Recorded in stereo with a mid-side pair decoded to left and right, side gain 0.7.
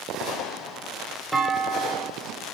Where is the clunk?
10° right, 1.7 m.